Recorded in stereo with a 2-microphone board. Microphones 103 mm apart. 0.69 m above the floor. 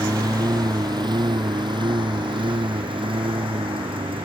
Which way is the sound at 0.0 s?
35° right (ahead or behind).